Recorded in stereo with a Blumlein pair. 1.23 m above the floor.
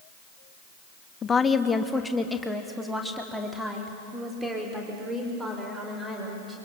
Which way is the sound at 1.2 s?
20° left.